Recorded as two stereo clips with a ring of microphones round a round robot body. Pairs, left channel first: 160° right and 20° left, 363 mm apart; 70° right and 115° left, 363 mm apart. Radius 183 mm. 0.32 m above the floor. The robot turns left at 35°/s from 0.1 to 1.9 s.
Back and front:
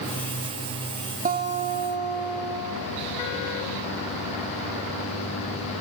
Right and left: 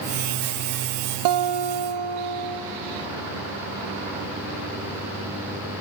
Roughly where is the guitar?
Left.